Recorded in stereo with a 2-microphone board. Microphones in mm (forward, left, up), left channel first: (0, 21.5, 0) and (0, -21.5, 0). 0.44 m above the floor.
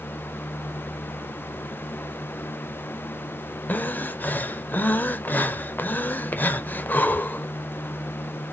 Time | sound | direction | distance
3.7 | breathing | 50° left (ahead or behind) | 0.5 m